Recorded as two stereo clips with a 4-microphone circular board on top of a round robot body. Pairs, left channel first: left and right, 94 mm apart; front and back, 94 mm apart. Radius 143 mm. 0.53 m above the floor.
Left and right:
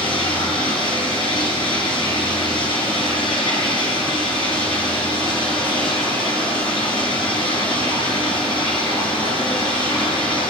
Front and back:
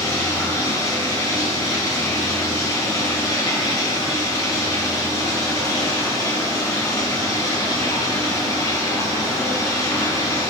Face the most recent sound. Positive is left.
turn(degrees=55)